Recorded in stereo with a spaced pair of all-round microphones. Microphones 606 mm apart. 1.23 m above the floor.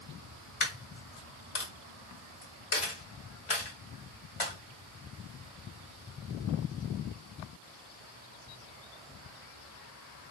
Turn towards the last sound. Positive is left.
turn(degrees=60)  # may be behind; listen again after turning